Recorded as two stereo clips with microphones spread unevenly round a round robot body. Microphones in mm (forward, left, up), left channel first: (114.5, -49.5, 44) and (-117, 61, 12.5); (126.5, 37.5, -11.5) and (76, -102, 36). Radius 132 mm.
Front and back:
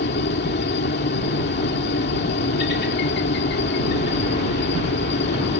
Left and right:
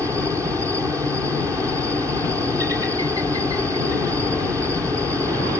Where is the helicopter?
30° right.